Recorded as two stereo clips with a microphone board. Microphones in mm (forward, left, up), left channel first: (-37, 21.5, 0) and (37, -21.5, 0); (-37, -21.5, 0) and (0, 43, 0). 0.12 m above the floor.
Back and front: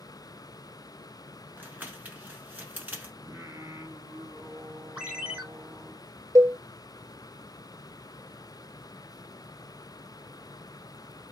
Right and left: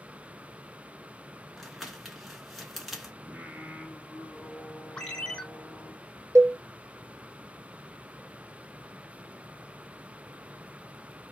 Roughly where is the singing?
Ahead.